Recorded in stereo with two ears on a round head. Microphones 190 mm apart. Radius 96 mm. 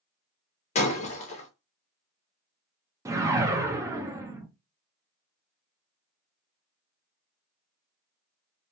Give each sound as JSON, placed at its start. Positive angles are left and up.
{"t": 0.8, "sound": "breaking glass", "side_deg": 30, "distance_m": 1.0}
{"t": 3.0, "sound": "a whoosh", "side_deg": -15, "distance_m": 0.5}